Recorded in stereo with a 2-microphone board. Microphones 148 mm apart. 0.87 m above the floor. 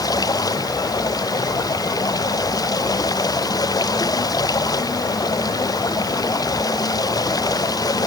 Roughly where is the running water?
Left.